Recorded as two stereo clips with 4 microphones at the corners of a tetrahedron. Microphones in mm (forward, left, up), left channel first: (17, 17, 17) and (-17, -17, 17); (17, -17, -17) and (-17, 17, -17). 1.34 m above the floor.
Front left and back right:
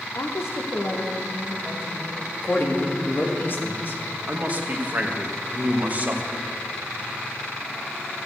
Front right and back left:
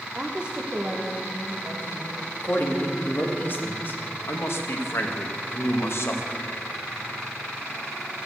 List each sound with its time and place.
0.1 s a woman speaking: 60° left, 0.9 m; by 2.2 s 80° left, 2.5 m
2.4 s a man speaking: straight ahead, 2 m
4.3 s a man speaking: 80° right, 1.6 m